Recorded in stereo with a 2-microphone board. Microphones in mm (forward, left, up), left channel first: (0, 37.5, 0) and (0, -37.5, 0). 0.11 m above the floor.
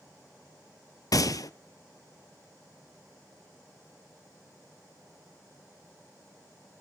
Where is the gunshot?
60° left (ahead or behind), 0.5 m.